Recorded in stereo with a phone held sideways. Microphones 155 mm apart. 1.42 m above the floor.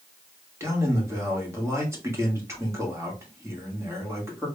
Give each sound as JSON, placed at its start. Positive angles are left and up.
{"t": 0.6, "sound": "a man speaking", "side_deg": -20, "distance_m": 1.5}